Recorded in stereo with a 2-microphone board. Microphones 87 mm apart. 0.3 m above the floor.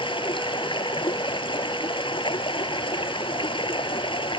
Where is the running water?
75° left (ahead or behind).